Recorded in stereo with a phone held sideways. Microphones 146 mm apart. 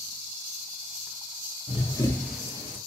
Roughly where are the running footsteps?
Left.